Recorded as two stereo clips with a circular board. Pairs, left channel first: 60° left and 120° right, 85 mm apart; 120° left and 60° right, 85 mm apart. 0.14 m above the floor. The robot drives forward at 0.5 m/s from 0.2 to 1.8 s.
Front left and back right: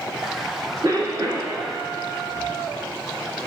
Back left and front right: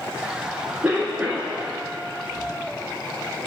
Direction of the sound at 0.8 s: 130° right.